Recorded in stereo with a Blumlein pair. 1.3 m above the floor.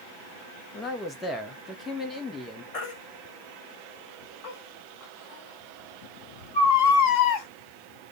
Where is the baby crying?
35° left, 1.8 m.